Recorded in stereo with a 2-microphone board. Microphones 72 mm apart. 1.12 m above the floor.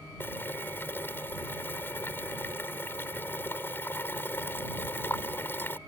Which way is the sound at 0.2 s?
30° left (ahead or behind).